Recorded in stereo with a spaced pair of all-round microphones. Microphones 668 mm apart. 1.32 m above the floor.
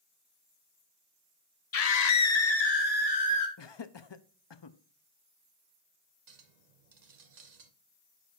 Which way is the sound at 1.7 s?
60° left (ahead or behind).